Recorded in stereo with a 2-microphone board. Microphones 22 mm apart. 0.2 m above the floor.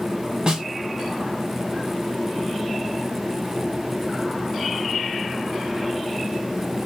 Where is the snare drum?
35° right (ahead or behind), 1.0 m.